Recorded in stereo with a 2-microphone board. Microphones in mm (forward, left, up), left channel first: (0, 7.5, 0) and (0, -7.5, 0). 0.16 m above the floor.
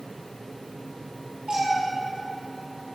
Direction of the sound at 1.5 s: 85° right.